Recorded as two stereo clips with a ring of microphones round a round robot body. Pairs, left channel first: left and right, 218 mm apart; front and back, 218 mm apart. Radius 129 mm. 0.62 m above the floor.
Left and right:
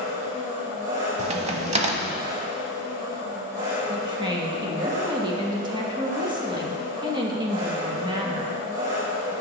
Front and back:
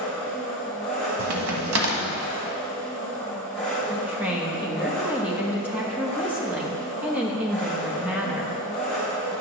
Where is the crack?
145° right, 0.8 m.